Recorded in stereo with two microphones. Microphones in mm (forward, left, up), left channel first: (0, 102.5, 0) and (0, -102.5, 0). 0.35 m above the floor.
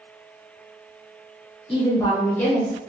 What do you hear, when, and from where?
1.7 s a woman speaking: 30° left (ahead or behind), 1.1 m; by 2.7 s centre (ahead or behind), 0.9 m